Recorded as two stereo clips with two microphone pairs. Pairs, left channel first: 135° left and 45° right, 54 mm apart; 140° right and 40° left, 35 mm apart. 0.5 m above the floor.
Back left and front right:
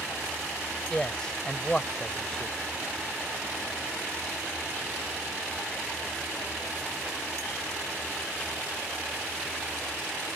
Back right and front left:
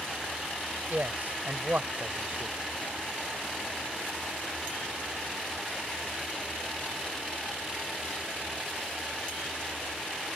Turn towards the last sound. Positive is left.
turn(degrees=65)